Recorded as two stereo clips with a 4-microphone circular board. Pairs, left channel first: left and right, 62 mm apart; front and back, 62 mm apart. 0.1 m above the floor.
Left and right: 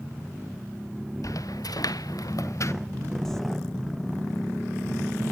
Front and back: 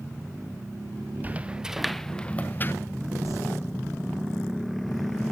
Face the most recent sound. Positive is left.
turn(degrees=175)